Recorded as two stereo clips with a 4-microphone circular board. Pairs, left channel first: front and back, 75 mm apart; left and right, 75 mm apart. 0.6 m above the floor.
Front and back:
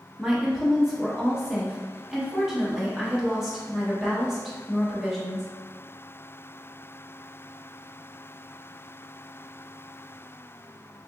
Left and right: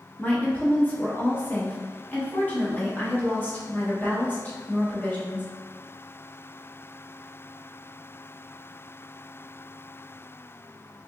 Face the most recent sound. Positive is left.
turn(degrees=100)